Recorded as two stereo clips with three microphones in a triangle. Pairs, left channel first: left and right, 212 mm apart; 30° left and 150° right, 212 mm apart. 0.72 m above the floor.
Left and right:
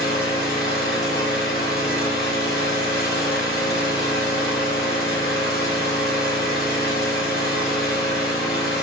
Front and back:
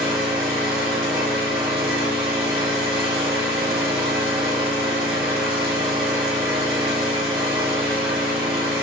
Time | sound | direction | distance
0.0 | an engine running | 125° left | 1.8 m